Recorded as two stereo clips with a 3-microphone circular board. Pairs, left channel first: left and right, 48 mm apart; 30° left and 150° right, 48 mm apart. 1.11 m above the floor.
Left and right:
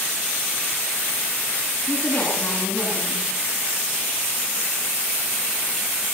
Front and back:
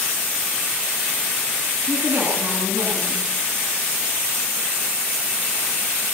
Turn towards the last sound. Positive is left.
turn(degrees=155)